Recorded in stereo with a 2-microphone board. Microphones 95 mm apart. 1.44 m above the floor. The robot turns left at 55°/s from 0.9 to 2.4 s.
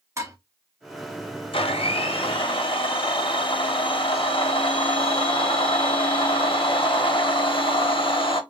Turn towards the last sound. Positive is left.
turn(degrees=65)